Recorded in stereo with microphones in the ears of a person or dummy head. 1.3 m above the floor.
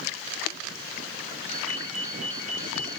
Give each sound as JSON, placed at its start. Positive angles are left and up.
{"t": 1.5, "sound": "a ringtone", "side_deg": -45, "distance_m": 3.5}